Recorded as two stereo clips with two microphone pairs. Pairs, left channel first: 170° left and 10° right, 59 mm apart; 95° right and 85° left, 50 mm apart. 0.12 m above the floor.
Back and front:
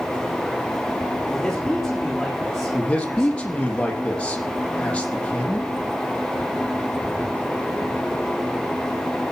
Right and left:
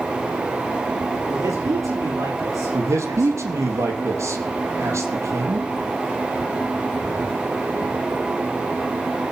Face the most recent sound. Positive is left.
turn(degrees=95)